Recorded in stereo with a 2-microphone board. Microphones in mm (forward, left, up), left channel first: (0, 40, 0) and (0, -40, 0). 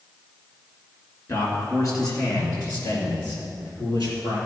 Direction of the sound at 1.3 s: 45° left (ahead or behind).